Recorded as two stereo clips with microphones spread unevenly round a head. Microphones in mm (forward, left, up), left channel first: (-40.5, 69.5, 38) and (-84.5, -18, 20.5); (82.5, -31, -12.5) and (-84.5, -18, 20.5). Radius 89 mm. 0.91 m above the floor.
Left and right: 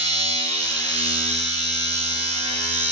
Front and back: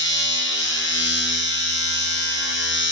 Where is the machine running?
20° right, 9 m.